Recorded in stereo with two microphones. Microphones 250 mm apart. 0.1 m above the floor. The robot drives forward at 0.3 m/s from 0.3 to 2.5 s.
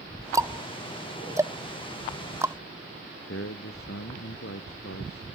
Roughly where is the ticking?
Centre.